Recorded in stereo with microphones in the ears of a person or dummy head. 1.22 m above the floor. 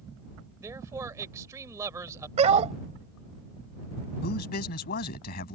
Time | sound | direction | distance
0.6 | a man speaking | 20° right (ahead or behind) | ?
2.4 | a dog barking | 40° right (ahead or behind) | ?
4.2 | a man speaking | 50° left (ahead or behind) | ?